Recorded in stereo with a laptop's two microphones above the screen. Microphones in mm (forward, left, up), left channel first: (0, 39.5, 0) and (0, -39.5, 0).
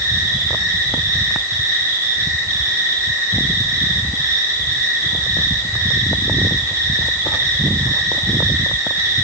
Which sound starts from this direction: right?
An insect, at 0.0 s.